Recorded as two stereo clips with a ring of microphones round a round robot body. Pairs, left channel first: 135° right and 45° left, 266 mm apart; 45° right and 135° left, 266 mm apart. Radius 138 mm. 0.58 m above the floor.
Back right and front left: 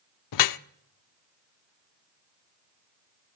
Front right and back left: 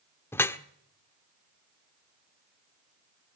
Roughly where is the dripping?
Behind right.